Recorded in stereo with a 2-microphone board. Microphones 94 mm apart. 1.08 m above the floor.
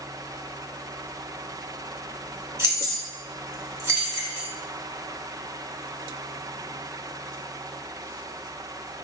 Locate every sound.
2.6 s keys jangling: 30° right (ahead or behind), 1.3 m